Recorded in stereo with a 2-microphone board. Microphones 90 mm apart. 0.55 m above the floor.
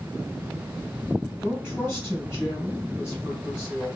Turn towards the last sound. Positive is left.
turn(degrees=-10)  # may be behind; listen again after turning